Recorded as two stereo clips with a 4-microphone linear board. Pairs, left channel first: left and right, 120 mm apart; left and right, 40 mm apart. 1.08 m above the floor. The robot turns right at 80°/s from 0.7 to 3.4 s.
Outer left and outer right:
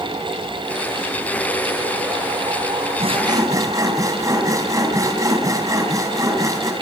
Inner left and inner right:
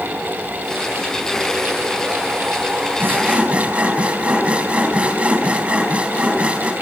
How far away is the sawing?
About 4 m.